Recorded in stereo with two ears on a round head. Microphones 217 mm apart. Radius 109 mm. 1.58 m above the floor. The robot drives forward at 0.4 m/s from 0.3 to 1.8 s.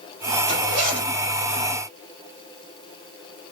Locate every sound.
0.5 s a zipper: 30° right (ahead or behind), 1.8 m; by 1.1 s 35° right (ahead or behind), 1.7 m